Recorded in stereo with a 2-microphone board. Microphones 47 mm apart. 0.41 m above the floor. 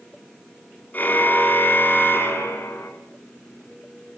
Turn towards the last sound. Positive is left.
turn(degrees=55)  # may be behind; listen again after turning